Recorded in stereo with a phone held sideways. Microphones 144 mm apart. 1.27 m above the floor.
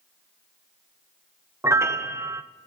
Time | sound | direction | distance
1.6 | a piano | 20° right (ahead or behind) | 0.5 m